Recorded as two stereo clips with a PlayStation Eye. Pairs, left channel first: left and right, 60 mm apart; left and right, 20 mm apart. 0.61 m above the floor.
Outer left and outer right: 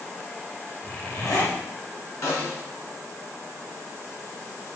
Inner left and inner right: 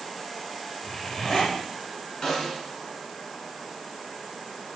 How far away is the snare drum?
About 7 m.